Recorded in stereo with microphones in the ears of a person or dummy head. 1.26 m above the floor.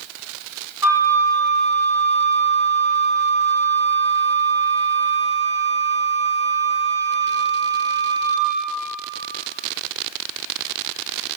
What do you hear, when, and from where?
0.8 s a flute: 10° right (ahead or behind), 1.3 m